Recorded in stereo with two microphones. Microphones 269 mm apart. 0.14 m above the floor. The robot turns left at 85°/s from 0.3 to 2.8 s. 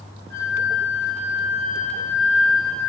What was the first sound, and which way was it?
A flute, 130° right.